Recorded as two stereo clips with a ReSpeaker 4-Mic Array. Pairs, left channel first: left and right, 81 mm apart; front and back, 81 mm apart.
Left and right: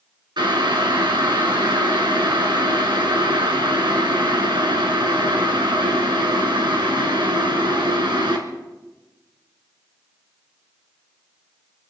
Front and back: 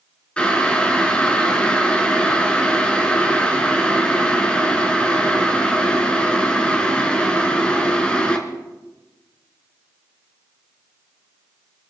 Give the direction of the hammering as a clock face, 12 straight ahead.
I don't hear hammering.